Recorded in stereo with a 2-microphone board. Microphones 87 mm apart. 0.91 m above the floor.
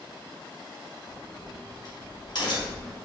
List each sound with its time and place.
1.1 s a crack: 55° left (ahead or behind), 2.0 m